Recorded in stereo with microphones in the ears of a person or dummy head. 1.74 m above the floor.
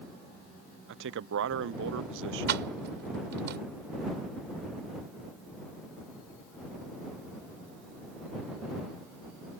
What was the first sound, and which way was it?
A man speaking, 65° right (ahead or behind).